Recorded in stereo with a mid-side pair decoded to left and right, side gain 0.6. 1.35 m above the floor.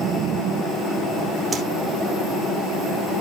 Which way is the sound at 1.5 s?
30° right.